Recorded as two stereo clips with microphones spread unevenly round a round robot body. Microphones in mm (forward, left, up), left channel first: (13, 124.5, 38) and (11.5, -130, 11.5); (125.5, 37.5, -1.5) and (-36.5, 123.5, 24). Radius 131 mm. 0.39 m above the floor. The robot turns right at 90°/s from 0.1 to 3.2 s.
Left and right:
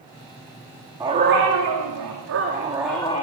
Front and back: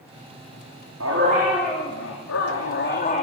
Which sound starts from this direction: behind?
A dog barking, at 1.0 s.